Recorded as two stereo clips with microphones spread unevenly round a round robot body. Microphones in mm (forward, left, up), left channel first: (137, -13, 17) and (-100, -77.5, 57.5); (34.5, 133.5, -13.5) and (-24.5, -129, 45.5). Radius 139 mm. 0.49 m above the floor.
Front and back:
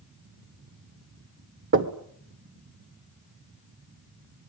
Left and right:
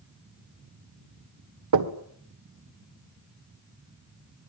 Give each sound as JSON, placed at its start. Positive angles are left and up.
{"t": 1.7, "sound": "knocking", "azimuth_deg": -125, "distance_m": 1.8}